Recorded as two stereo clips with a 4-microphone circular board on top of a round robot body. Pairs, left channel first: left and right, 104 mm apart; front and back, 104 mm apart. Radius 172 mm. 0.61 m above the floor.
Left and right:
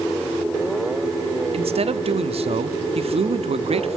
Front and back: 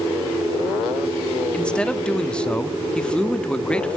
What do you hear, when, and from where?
1.5 s a man speaking: 80° right, 1.2 m